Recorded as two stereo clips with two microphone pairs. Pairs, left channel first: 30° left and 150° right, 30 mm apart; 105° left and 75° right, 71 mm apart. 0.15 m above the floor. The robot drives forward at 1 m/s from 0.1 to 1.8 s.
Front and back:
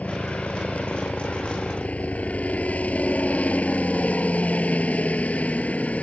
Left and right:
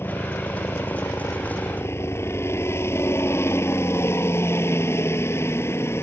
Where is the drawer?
I don't hear a drawer.